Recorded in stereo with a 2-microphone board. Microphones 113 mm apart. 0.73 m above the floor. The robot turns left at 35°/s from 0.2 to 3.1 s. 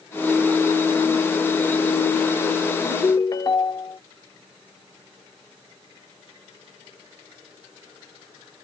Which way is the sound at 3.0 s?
35° left (ahead or behind).